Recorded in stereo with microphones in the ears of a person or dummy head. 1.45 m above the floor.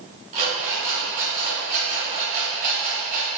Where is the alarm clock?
45° right (ahead or behind), 3 m.